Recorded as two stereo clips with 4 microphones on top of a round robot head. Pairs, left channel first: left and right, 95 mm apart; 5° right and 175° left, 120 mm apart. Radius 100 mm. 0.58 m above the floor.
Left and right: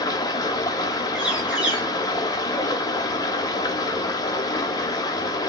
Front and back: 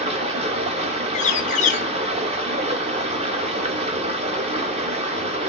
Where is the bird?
10° right, 0.5 m.